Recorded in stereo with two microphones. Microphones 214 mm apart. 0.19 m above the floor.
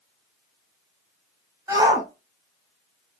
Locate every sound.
1.7 s a shout: 15° right (ahead or behind), 1.1 m